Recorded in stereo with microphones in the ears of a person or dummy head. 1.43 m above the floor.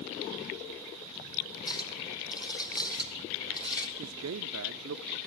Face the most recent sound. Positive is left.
turn(degrees=-80)